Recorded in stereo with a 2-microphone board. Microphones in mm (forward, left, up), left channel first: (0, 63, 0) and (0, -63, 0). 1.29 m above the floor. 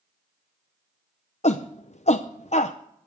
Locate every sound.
1.4 s a shout: 60° left (ahead or behind), 0.6 m